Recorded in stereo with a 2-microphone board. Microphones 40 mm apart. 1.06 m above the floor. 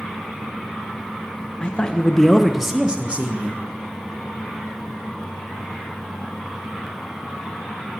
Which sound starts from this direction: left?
A man speaking, at 1.6 s.